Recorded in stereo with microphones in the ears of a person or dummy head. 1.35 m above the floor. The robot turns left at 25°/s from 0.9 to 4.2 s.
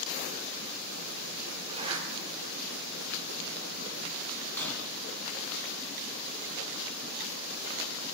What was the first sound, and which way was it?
A zipper, 30° right (ahead or behind).